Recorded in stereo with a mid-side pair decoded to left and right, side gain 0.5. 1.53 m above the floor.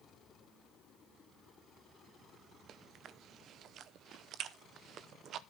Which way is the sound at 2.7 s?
65° right.